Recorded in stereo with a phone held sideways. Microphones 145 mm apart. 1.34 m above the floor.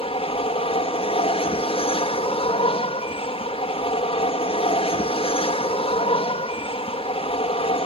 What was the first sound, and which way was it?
An aircraft, 40° left (ahead or behind).